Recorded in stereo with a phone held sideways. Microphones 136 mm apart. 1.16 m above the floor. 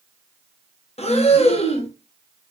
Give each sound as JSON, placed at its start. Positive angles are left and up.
{"t": 1.0, "sound": "breathing", "side_deg": 50, "distance_m": 0.8}